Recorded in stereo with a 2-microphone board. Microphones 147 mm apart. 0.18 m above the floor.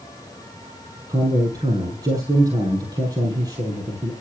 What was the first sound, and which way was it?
A man speaking, 25° right (ahead or behind).